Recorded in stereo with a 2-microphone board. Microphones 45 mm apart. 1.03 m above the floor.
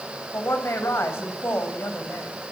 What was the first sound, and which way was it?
A woman speaking, 70° left (ahead or behind).